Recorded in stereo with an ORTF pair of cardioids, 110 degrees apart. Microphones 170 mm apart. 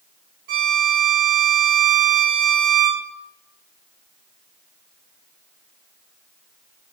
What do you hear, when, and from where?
0.5 s a violin: 65° right, 1.6 m